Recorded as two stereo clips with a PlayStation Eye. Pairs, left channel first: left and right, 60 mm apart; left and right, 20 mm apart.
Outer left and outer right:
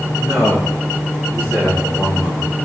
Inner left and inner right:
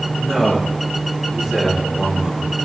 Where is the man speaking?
15° right (ahead or behind), 7.5 m; by 2.5 s 20° right (ahead or behind), 9 m.